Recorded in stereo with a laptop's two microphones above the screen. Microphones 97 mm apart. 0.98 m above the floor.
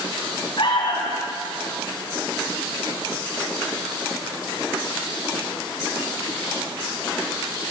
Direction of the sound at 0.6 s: 60° left (ahead or behind).